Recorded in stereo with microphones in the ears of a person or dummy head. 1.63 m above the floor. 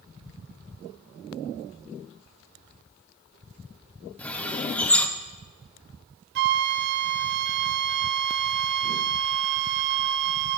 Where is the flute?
50° right (ahead or behind), 0.6 m.